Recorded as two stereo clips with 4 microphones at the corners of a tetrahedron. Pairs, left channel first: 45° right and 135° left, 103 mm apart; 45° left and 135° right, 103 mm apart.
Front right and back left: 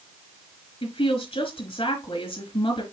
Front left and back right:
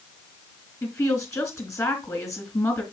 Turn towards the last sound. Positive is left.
turn(degrees=-15)